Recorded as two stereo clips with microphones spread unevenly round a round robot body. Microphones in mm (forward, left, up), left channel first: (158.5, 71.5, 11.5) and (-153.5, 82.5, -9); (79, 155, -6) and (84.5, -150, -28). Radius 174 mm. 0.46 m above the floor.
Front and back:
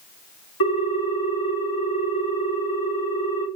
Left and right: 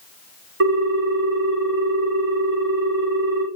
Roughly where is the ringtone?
Ahead right.